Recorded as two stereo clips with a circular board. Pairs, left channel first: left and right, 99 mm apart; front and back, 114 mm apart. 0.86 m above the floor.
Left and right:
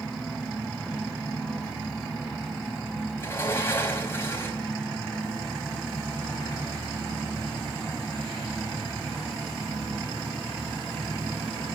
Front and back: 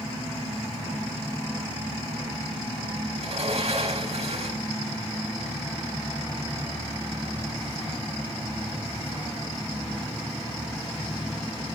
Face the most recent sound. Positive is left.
turn(degrees=155)